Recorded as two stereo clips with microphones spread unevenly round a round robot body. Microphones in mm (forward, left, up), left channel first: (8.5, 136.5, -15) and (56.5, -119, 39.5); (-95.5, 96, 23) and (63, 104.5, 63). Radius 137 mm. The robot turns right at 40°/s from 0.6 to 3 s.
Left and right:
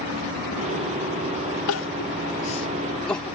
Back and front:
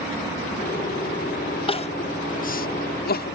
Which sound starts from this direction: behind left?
Crying, at 1.7 s.